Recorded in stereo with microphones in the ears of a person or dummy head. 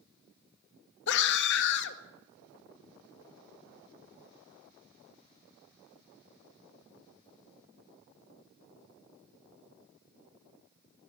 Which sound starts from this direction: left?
A scream, at 1.1 s.